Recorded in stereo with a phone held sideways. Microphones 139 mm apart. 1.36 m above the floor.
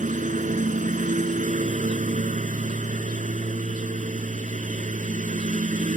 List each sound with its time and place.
0.0 s a lawn mower: 65° right (ahead or behind)